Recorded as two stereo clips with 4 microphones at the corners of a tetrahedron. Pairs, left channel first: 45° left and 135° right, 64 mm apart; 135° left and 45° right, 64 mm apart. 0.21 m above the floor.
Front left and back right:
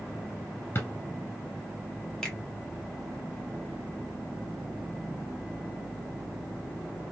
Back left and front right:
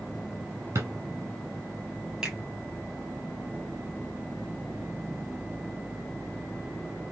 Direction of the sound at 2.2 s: Straight ahead.